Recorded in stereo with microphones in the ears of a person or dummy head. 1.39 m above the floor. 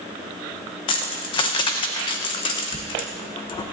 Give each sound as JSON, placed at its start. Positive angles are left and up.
{"t": 0.9, "sound": "keys jangling", "side_deg": 25, "distance_m": 0.8}